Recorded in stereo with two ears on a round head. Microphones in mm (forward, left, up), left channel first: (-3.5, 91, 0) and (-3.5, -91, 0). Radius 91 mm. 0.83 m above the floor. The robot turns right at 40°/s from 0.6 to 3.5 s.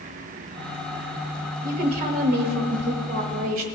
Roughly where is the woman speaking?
Behind right.